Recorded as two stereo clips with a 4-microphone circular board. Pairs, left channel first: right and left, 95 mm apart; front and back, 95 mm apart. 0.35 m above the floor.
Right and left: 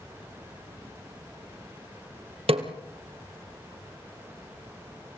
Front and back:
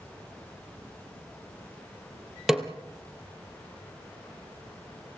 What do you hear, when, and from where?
2.5 s a snare drum: 95° left, 2 m